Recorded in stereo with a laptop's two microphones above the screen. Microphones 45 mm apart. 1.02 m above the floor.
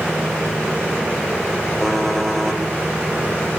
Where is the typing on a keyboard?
5° left (ahead or behind), 2 m.